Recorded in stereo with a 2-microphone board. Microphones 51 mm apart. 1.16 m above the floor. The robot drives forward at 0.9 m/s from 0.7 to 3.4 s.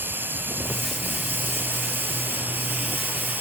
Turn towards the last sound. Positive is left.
turn(degrees=-40)  # may be behind; listen again after turning